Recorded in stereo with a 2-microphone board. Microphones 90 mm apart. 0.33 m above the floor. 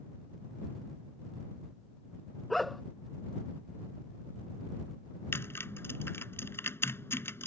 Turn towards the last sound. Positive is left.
turn(degrees=25)  # may be behind; listen again after turning